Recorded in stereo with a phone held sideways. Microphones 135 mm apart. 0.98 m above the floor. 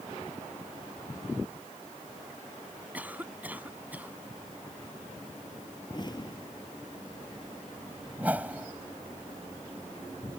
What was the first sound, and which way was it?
A cough, 10° right (ahead or behind).